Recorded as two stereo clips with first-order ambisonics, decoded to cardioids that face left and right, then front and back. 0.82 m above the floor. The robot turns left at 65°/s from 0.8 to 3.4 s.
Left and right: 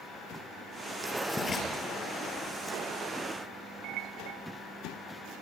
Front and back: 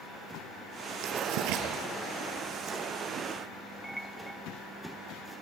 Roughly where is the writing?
Behind.